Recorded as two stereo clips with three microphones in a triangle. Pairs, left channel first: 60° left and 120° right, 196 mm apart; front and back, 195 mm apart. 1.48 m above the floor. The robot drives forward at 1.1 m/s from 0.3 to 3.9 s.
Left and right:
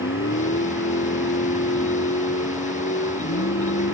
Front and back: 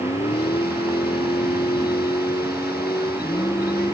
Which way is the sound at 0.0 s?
60° left.